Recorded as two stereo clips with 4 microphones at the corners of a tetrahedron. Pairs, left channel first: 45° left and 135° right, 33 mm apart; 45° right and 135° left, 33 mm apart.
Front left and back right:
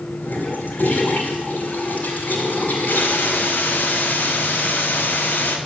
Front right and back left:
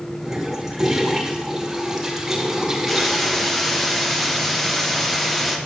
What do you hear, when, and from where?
0.2 s a toilet flushing: 60° left, 3 m
2.9 s a hiss: 40° left, 1.4 m